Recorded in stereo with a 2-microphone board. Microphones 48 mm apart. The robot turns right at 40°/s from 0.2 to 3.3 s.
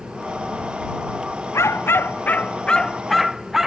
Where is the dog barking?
115° left; by 3.7 s 175° right.